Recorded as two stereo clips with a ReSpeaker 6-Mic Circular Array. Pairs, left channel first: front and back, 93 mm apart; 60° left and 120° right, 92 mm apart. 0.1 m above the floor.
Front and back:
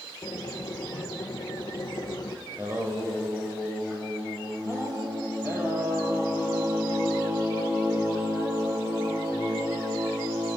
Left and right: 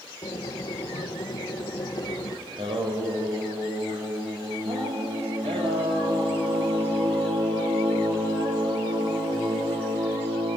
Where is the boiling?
30° left, 1.1 m.